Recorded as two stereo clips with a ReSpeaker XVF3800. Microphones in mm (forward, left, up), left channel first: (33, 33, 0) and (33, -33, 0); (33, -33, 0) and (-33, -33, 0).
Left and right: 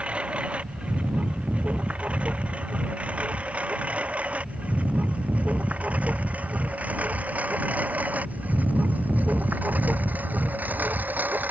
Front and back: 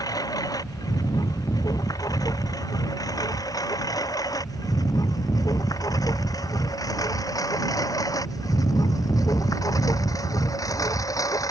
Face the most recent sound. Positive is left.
turn(degrees=-25)